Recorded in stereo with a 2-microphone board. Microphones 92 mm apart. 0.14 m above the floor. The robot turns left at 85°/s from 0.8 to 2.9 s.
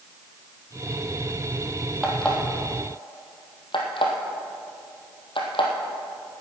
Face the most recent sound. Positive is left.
turn(degrees=65)  # may be behind; listen again after turning